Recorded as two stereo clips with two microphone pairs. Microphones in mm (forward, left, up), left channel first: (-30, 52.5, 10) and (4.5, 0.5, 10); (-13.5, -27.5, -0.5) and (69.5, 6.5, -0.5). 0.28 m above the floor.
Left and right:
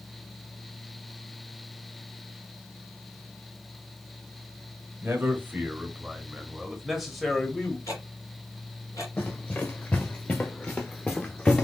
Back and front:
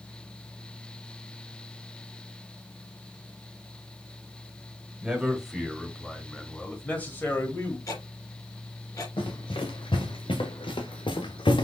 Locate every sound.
5.0 s a man speaking: 45° right, 1.6 m; by 7.8 s 170° right, 1.5 m
7.9 s ticking: 155° left, 3 m
9.2 s running footsteps: straight behind, 2.5 m; by 11.7 s 165° right, 1.2 m